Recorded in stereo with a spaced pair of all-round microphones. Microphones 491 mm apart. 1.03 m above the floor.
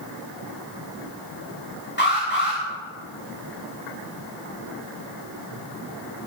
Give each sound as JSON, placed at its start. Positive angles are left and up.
{"t": 2.0, "sound": "an alarm", "side_deg": 20, "distance_m": 6.5}